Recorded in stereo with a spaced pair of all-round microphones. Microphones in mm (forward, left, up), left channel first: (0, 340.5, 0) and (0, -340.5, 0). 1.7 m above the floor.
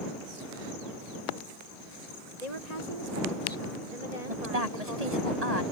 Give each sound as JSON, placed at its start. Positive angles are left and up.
{"t": 2.4, "sound": "a woman speaking", "side_deg": -75}
{"t": 4.3, "sound": "a woman speaking", "side_deg": -75}